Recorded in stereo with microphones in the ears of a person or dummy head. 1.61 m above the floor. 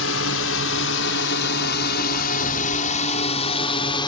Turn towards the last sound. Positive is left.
turn(degrees=25)  # may be behind; listen again after turning